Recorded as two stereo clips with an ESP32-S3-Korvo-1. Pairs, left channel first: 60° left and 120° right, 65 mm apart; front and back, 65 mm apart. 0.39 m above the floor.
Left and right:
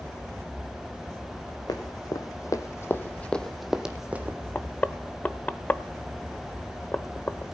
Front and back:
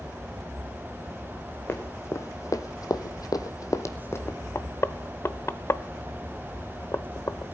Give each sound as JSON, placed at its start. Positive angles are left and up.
{"t": 1.7, "sound": "running footsteps", "azimuth_deg": 50, "distance_m": 1.6}
{"t": 4.5, "sound": "knocking", "azimuth_deg": 15, "distance_m": 0.7}